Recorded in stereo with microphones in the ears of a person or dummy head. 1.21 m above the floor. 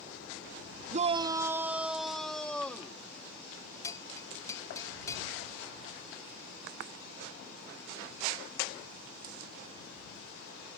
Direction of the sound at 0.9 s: 40° right (ahead or behind).